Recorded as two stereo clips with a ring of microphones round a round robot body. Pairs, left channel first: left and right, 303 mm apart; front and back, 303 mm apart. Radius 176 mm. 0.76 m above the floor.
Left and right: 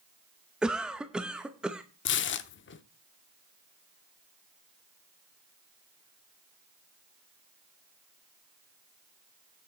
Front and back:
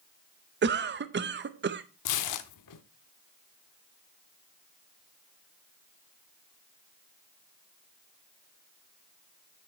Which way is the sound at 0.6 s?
175° right.